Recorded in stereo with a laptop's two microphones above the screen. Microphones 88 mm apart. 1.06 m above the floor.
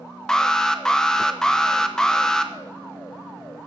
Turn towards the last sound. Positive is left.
turn(degrees=10)  # may be behind; listen again after turning